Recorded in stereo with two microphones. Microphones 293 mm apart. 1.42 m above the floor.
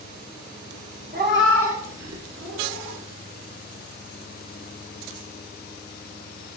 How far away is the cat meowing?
About 1.0 m.